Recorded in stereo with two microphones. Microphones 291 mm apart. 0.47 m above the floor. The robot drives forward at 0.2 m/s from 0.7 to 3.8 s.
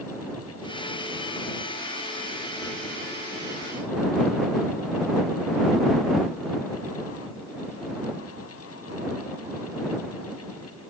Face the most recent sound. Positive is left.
No sound to turn to.